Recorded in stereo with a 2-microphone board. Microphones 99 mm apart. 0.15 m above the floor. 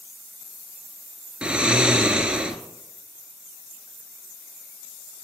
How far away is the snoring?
About 1.0 m.